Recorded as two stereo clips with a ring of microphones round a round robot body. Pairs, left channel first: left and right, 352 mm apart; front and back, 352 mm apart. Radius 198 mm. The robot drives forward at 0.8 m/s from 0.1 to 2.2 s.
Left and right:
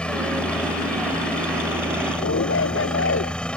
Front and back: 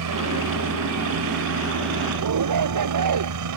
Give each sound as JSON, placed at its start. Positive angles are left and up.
{"t": 0.0, "sound": "a helicopter", "azimuth_deg": 175}
{"t": 2.2, "sound": "a shout", "azimuth_deg": 145}